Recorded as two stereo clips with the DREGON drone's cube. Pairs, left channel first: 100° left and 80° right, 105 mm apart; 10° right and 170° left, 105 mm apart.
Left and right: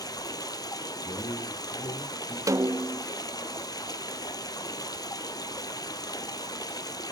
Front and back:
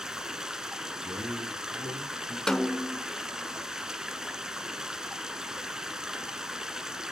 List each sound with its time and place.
0.0 s running water: 85° left, 0.9 m
1.0 s a man speaking: 130° left, 4.5 m
2.5 s a snare drum: 95° right, 0.5 m